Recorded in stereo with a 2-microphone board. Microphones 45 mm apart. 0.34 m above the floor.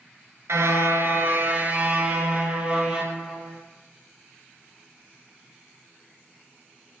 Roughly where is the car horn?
Right.